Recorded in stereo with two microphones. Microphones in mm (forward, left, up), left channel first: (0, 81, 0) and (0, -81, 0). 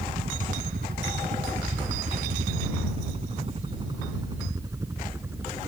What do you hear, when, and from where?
0.0 s a helicopter: 70° right (ahead or behind); by 5.7 s 15° right (ahead or behind)